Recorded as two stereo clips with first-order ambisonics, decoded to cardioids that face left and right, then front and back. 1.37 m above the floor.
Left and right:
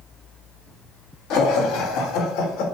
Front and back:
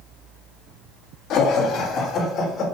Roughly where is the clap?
No clap in this recording.